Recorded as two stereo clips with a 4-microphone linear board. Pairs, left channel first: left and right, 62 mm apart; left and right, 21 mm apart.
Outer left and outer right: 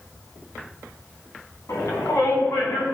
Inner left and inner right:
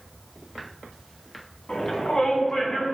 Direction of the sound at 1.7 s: 80° left.